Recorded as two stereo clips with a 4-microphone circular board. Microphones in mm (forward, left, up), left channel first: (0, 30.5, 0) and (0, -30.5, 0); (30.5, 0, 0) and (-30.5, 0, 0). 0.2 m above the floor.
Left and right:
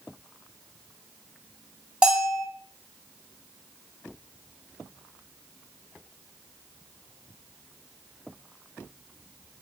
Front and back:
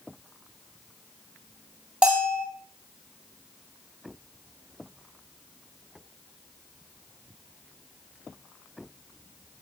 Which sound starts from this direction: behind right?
A bell, at 2.0 s.